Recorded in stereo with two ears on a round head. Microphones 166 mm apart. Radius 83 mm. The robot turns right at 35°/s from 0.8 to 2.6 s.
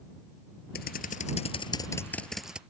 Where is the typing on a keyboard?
125° left; by 2.6 s 175° right.